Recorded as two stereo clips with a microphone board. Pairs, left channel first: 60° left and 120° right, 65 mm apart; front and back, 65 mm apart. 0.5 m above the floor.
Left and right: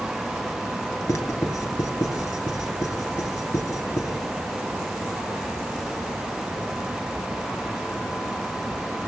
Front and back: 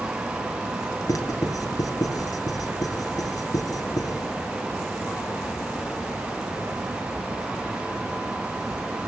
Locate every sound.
1.1 s writing: 30° left, 4 m